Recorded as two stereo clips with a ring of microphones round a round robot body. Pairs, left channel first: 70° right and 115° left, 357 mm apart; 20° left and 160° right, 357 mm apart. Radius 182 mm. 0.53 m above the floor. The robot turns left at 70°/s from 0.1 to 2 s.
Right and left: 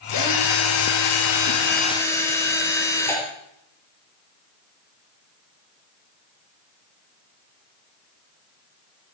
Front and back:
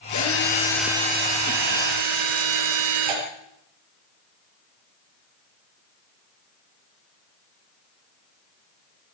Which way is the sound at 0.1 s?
20° right.